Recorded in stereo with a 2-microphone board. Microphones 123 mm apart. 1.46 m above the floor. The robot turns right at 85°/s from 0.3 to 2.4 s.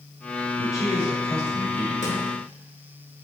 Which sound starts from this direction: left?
A drawer, at 2.0 s.